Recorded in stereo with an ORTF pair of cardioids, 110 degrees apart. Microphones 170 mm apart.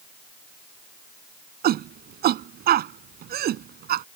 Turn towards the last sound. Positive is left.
turn(degrees=-65)